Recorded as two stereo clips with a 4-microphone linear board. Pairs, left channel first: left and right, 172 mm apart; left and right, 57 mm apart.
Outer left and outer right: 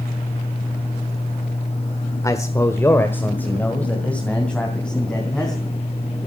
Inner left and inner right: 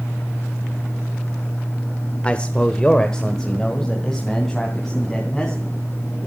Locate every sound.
2.2 s a man speaking: 20° left (ahead or behind), 1.2 m; by 5.7 s 5° left (ahead or behind), 4 m